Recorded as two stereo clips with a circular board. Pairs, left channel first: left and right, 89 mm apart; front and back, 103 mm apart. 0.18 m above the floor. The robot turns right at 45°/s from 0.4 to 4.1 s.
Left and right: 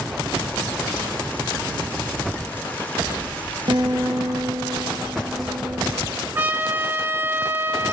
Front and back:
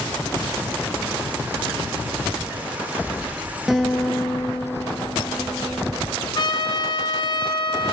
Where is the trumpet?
30° right, 2.5 m.